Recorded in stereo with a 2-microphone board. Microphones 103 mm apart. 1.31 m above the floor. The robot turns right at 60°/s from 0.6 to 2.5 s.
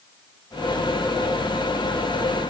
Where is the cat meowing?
No cat meowing in this recording.